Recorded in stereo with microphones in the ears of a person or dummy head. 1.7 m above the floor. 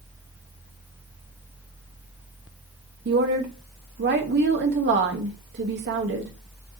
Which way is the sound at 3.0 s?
55° right (ahead or behind).